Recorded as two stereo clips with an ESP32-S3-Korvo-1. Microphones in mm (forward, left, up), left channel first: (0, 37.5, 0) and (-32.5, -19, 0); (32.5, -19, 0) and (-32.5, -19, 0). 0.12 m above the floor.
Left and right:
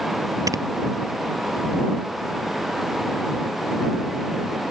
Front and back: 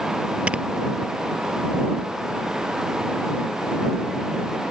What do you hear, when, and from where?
0.5 s snoring: 110° right